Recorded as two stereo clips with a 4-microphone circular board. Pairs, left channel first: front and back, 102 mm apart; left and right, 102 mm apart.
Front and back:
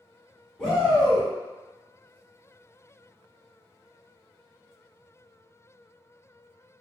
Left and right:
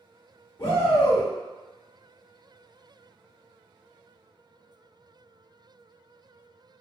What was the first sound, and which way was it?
A shout, 70° left.